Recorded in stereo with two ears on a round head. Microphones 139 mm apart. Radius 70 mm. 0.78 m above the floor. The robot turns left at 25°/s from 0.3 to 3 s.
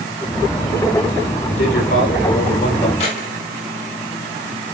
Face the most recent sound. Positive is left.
turn(degrees=40)  # may be behind; listen again after turning